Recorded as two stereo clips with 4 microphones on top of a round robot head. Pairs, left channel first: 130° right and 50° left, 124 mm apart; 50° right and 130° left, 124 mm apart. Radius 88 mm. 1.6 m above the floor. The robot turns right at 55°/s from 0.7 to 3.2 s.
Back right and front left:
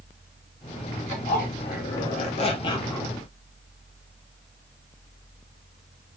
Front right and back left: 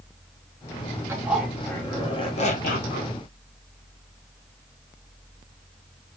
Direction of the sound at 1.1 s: 160° right.